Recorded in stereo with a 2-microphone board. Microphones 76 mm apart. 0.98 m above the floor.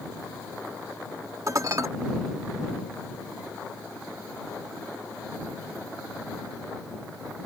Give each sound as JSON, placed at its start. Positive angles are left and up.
{"t": 1.5, "sound": "dishes clattering", "side_deg": -50}